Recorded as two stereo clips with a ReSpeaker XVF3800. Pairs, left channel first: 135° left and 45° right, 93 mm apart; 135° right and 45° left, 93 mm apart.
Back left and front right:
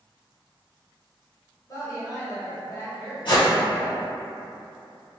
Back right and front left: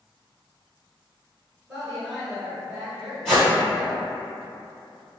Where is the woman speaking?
130° left, 1.3 m.